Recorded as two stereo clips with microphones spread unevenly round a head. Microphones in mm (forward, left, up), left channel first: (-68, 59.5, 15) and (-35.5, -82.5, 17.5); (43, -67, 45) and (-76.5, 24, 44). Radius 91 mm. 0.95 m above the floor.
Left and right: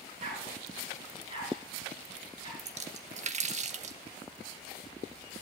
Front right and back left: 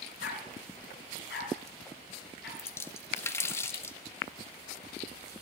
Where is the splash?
110° right, 1.3 m.